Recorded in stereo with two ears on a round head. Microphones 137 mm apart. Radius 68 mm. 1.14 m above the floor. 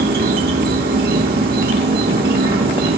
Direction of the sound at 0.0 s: 65° right (ahead or behind).